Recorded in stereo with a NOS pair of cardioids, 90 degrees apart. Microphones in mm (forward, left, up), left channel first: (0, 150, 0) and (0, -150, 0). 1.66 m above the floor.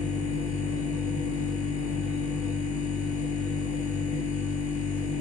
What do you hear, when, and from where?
0.0 s a machine running: 65° left, 1.2 m